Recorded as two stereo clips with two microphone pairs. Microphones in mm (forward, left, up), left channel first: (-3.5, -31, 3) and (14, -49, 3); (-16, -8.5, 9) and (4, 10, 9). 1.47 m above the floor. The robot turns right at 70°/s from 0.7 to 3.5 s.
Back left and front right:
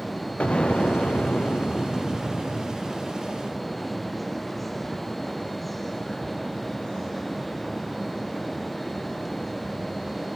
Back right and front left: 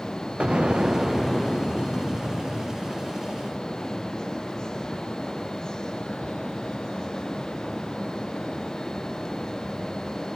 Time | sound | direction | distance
0.4 | an explosion | 95° left | 0.6 m